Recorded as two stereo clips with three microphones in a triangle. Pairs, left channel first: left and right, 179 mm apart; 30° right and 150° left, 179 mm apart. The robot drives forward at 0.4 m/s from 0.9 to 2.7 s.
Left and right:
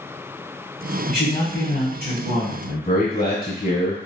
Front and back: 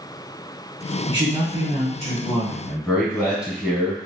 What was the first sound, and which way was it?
A man speaking, 95° left.